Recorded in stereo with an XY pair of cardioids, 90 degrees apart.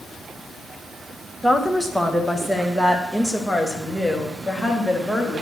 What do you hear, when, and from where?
1.4 s a woman speaking: 5° right, 2.0 m; by 5.4 s 5° left, 4 m